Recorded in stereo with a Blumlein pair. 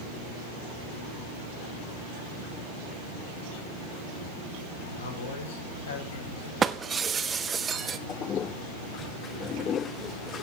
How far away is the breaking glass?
About 0.9 m.